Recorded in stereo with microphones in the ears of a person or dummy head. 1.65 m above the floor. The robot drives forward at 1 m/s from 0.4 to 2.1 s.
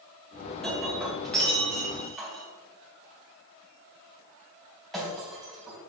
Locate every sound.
0.6 s breaking glass: 5° left (ahead or behind), 2 m